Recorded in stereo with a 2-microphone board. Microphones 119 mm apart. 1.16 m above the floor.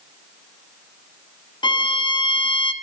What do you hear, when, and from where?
1.6 s a violin: 40° left (ahead or behind), 0.7 m